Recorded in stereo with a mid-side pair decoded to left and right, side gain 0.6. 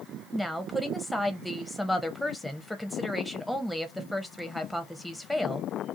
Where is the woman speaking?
5° left, 0.6 m.